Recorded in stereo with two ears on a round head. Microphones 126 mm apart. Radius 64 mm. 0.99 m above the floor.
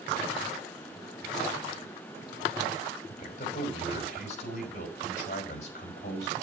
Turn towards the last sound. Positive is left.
turn(degrees=60)  # may be behind; listen again after turning